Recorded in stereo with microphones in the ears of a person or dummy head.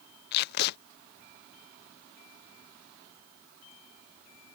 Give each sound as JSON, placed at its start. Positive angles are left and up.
{"t": 0.3, "sound": "tape being pulled", "side_deg": 55}